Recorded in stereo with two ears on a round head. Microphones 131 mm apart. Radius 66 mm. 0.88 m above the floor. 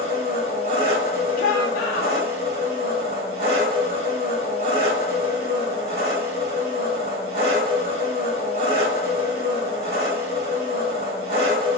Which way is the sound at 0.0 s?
40° right (ahead or behind).